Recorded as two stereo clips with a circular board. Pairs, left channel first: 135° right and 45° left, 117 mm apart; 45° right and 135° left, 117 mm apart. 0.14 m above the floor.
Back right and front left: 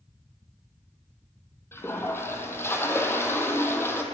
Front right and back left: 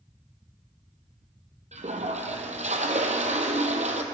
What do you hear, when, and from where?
1.7 s a toilet flushing: 155° left, 0.7 m